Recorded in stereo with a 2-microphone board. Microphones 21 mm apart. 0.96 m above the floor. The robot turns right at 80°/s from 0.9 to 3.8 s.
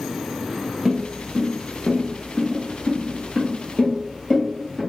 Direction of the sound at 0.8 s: 20° right (ahead or behind).